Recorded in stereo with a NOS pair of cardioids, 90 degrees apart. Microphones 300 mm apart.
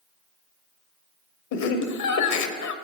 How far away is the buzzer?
I don't hear a buzzer.